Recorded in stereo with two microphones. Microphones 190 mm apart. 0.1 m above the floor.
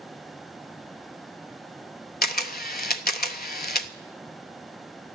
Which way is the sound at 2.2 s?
55° left (ahead or behind).